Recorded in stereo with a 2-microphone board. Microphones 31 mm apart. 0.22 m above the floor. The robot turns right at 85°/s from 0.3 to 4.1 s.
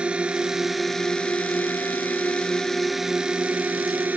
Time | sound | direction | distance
0.0 | a drone | 40° right | ?